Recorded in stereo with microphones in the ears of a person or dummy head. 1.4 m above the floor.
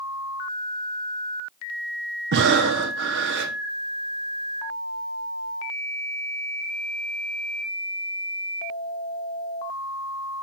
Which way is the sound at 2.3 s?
55° right (ahead or behind).